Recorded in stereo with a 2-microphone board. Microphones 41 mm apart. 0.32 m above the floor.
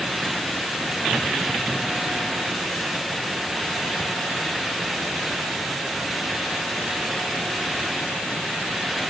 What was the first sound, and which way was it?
Only background noise.